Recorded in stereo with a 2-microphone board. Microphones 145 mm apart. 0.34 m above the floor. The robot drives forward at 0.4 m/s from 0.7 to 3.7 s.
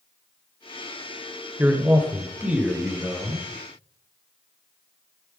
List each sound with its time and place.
1.6 s a man speaking: 15° right (ahead or behind), 0.9 m; by 3.5 s 10° right (ahead or behind), 1.4 m